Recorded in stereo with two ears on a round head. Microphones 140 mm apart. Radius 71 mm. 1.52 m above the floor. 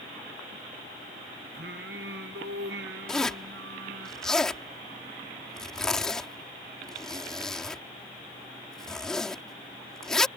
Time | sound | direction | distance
1.5 | singing | 70° right (ahead or behind) | ?
3.1 | a zipper | 5° left (ahead or behind) | ?